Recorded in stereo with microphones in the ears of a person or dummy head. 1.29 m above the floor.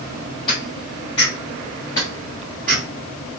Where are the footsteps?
25° left (ahead or behind), 2.5 m; by 2.8 s 5° left (ahead or behind), 1.4 m.